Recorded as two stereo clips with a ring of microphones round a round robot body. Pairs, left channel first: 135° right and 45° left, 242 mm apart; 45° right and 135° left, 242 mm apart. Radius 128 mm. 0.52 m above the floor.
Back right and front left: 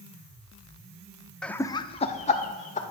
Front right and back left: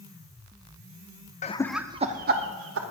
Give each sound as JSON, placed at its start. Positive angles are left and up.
{"t": 1.4, "sound": "laughter", "azimuth_deg": -50, "distance_m": 0.7}